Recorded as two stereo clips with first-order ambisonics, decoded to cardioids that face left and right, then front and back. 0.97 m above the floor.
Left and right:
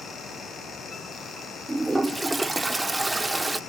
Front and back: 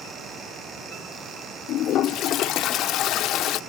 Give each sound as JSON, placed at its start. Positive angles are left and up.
{"t": 1.7, "sound": "a toilet flushing", "azimuth_deg": -15, "distance_m": 0.6}